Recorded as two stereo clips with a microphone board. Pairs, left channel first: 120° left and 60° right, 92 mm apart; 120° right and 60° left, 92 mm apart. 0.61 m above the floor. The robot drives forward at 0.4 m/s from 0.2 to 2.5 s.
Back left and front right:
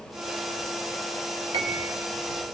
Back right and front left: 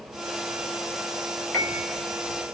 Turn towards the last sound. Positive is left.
turn(degrees=-55)